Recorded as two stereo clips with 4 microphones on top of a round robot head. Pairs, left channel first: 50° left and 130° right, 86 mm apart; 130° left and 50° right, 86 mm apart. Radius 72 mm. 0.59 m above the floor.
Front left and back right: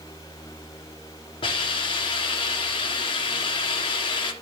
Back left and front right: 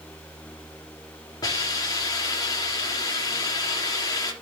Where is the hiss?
80° left, 2 m.